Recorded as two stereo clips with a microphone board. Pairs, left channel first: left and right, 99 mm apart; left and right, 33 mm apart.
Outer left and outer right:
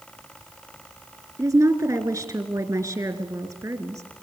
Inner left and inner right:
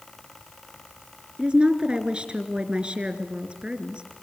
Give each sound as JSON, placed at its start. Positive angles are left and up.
{"t": 1.4, "sound": "a woman speaking", "side_deg": -35, "distance_m": 2.5}